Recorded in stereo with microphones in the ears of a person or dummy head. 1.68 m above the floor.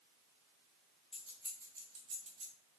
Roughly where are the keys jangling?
Centre.